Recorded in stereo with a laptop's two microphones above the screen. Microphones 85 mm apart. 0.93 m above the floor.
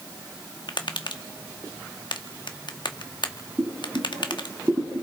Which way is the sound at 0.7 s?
65° left (ahead or behind).